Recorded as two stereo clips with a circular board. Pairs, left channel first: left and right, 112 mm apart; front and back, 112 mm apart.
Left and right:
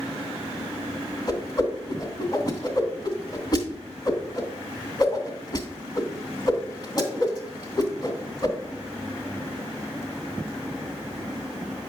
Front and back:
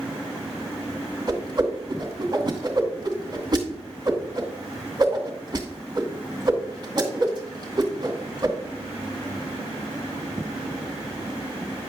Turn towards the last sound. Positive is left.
turn(degrees=130)